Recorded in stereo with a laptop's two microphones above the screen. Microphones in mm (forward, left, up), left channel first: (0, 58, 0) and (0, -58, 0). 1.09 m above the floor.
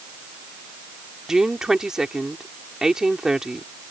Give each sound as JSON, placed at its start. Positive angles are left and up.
{"t": 1.3, "sound": "a woman speaking", "side_deg": -5}